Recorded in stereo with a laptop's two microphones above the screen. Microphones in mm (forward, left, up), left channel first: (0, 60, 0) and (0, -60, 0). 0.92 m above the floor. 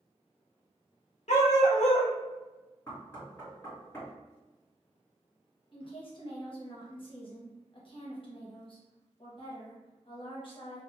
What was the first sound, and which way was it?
A dog barking, 70° left (ahead or behind).